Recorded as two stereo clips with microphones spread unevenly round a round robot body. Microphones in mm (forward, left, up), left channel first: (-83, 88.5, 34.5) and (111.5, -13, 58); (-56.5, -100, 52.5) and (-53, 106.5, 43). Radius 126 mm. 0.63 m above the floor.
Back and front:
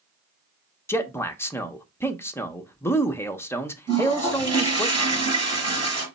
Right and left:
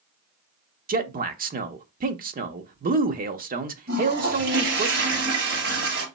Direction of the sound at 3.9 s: 45° left.